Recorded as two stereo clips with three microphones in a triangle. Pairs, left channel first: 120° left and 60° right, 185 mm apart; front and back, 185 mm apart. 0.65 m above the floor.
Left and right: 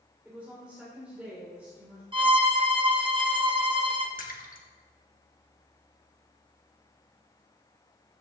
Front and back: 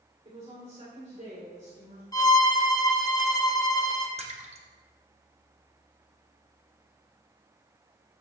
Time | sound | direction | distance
0.2 | a woman speaking | 140° right | 2.5 m
2.1 | a violin | 45° right | 0.8 m
4.2 | a splash | 135° left | 1.1 m